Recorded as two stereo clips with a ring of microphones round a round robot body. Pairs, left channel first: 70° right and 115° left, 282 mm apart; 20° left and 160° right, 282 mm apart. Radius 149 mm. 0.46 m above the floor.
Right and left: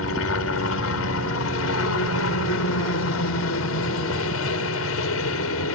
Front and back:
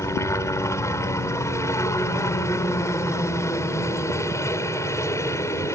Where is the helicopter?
55° right.